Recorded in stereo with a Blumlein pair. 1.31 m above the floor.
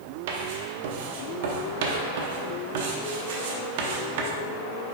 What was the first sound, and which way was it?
Writing, 50° right.